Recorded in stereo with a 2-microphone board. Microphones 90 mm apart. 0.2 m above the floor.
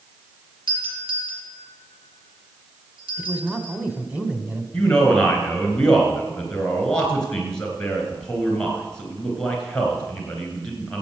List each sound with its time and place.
0.7 s a doorbell: 70° right (ahead or behind), 4 m
3.2 s a man speaking: 15° right (ahead or behind), 1.5 m
4.7 s a man speaking: 10° left (ahead or behind), 3 m